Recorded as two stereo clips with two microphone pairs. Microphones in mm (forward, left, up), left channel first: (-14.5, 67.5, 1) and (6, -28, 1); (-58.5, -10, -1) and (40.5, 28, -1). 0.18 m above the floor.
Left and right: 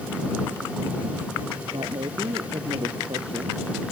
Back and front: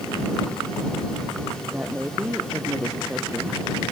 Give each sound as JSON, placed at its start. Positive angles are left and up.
{"t": 1.7, "sound": "a woman speaking", "azimuth_deg": -55}